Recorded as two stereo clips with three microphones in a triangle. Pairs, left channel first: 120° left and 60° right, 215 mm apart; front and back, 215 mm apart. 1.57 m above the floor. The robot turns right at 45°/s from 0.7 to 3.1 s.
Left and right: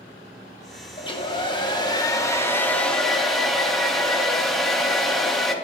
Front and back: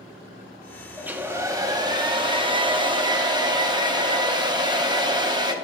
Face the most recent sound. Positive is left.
turn(degrees=-155)